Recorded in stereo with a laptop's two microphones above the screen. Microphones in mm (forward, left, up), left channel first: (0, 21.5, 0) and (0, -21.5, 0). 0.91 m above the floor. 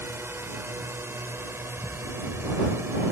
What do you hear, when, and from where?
0.0 s a drone: 70° right (ahead or behind); by 3.1 s 65° right (ahead or behind)